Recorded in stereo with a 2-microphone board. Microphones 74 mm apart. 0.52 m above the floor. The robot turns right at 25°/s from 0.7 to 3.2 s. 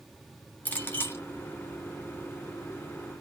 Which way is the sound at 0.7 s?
25° left (ahead or behind).